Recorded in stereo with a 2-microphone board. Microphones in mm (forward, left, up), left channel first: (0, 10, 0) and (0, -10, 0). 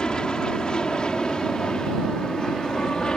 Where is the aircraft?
40° left (ahead or behind).